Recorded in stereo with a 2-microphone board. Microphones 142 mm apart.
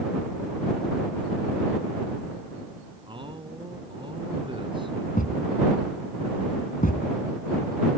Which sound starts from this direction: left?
A thud, at 5.2 s.